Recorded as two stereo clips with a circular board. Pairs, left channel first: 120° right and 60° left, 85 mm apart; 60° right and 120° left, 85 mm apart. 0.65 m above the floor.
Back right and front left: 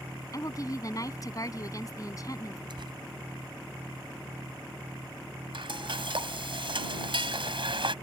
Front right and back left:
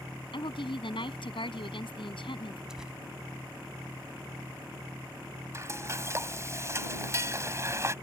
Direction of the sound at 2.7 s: 35° left.